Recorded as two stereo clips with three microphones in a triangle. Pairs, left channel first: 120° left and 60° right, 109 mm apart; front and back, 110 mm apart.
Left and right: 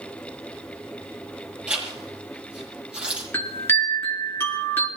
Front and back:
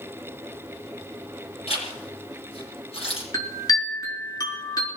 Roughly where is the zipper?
Ahead.